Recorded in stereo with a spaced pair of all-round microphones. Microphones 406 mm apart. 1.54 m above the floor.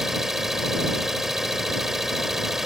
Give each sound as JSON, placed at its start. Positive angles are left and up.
{"t": 0.0, "sound": "an engine running", "side_deg": 0}